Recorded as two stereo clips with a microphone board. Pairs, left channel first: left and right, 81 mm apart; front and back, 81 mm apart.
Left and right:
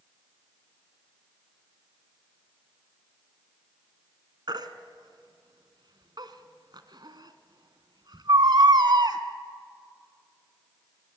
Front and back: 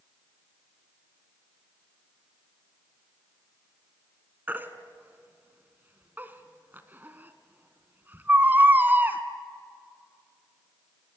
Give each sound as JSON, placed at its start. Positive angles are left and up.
{"t": 4.5, "sound": "a baby crying", "azimuth_deg": -115, "distance_m": 1.5}